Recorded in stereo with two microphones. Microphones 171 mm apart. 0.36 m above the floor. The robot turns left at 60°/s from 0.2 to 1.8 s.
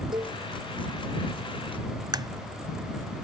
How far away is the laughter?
No laughter in this recording.